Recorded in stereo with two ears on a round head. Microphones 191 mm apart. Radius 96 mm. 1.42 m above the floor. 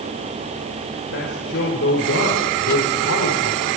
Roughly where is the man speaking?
Left.